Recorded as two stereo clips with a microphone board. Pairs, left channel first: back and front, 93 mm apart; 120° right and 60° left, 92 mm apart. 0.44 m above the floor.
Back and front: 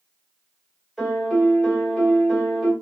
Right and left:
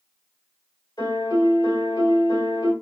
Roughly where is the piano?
Right.